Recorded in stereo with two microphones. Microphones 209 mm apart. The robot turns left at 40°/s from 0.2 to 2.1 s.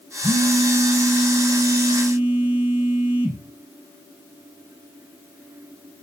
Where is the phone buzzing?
15° right (ahead or behind), 0.9 m; by 3.4 s 10° right (ahead or behind), 0.9 m.